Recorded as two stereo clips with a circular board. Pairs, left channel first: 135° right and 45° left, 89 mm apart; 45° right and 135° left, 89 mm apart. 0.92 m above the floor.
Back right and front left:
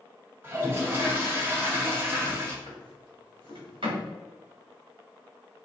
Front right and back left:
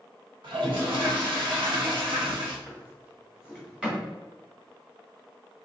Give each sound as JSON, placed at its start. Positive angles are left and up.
{"t": 0.4, "sound": "a toilet flushing", "azimuth_deg": 110, "distance_m": 1.1}
{"t": 2.7, "sound": "a drawer", "azimuth_deg": 55, "distance_m": 1.6}